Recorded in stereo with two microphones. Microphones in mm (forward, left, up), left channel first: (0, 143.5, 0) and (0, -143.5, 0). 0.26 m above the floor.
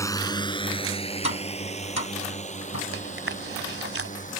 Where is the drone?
10° left (ahead or behind); by 4.4 s 25° left (ahead or behind).